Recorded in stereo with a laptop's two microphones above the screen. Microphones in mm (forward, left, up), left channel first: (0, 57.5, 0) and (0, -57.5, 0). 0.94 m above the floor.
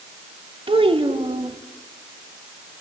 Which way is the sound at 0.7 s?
55° right (ahead or behind).